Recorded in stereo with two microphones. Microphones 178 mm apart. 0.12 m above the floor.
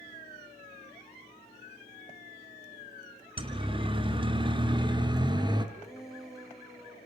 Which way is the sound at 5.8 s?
Centre (ahead or behind).